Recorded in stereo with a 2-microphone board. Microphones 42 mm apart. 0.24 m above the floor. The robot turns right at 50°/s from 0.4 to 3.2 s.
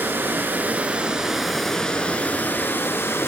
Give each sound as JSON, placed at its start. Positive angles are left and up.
{"t": 0.0, "sound": "running water", "azimuth_deg": -55, "distance_m": 0.8}